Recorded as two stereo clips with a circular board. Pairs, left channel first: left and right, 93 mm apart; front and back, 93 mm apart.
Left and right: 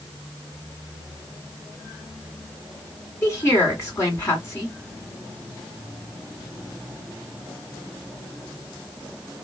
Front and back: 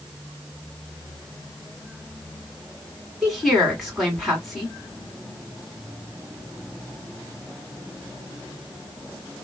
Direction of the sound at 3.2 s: 90° left.